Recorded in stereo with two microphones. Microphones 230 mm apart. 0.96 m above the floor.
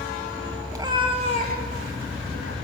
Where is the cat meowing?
15° right (ahead or behind), 2 m; by 2.5 s 75° right (ahead or behind), 1.8 m.